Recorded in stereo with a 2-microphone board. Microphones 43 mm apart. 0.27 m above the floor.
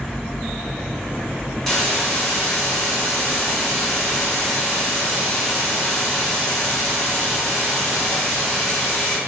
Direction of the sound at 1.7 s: 10° left (ahead or behind).